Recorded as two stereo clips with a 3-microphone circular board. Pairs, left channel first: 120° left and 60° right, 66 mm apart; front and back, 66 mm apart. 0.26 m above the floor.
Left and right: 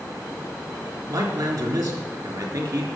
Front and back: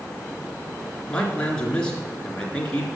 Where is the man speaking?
75° right, 3.5 m.